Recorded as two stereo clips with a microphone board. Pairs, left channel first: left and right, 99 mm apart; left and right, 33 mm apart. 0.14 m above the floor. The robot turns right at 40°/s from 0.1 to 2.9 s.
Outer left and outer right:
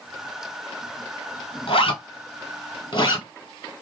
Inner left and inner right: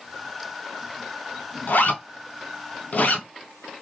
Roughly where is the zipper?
Left.